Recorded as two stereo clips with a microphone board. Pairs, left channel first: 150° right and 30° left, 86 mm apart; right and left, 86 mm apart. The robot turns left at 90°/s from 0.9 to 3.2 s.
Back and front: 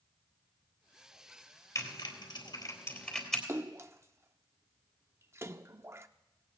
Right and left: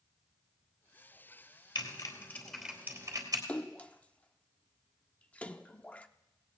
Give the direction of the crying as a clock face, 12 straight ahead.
I don't hear crying.